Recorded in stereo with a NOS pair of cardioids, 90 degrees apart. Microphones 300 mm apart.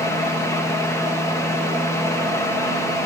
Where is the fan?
10° left, 2.5 m.